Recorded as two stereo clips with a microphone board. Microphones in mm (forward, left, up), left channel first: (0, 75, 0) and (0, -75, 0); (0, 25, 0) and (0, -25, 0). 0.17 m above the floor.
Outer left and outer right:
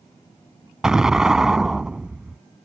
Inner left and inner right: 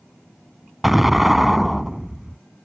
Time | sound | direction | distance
0.8 | an explosion | 5° right (ahead or behind) | ?